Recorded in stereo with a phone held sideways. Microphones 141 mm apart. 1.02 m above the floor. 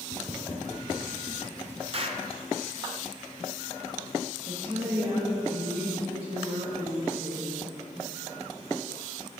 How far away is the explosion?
About 0.6 m.